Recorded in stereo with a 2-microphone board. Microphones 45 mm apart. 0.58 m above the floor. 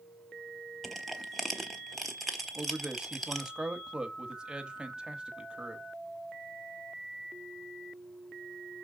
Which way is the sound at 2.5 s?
20° right (ahead or behind).